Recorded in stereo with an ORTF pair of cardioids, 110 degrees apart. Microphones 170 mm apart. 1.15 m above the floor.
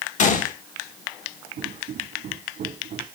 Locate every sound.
0.2 s a gunshot: 50° left, 1.5 m
1.6 s footsteps: 55° right, 4.5 m